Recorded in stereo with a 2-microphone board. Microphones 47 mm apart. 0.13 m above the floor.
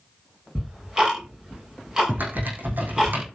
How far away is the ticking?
About 5 m.